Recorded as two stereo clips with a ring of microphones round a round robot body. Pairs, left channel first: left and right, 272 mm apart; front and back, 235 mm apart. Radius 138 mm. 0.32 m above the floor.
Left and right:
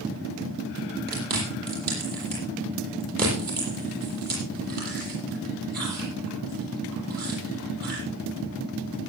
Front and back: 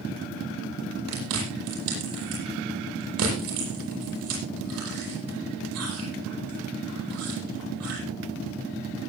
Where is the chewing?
145° right, 9.5 m.